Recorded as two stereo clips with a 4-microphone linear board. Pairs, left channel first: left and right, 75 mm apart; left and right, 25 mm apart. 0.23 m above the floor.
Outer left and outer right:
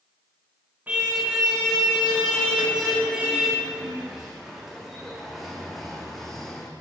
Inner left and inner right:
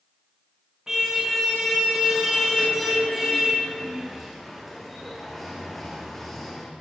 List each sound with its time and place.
0.9 s a car horn: 20° right (ahead or behind), 9.5 m; by 6.7 s 5° left (ahead or behind), 6.5 m